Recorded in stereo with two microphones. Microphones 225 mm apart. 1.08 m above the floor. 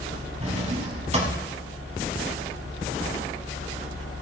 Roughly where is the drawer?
Right.